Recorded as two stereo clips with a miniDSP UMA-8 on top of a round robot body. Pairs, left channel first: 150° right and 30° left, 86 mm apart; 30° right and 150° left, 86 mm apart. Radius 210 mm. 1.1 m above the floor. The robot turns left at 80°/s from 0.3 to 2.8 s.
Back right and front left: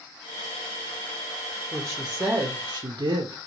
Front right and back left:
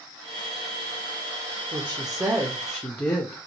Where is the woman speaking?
135° left, 0.8 m; by 3.4 s 50° left, 0.8 m.